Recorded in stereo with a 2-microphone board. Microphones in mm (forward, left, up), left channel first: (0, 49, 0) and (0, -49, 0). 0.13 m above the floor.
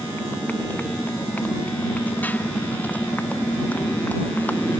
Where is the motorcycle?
20° left (ahead or behind); by 4.8 s 15° left (ahead or behind).